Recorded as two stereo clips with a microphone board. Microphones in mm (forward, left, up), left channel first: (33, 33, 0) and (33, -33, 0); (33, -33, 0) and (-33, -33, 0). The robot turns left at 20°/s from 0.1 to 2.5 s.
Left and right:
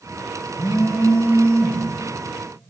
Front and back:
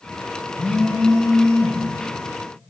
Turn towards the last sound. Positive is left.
turn(degrees=10)